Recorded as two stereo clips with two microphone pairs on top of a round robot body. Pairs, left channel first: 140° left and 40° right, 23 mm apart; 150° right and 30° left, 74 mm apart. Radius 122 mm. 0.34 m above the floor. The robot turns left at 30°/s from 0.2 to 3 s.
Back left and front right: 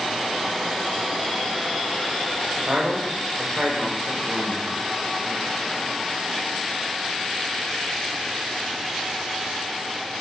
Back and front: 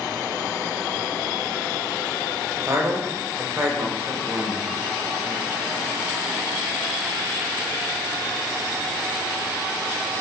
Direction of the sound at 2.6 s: 5° right.